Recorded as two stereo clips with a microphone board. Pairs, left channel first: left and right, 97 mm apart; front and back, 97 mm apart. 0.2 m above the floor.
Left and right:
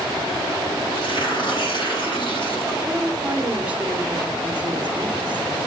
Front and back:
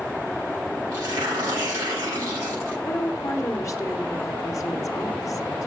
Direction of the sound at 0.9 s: 120° left.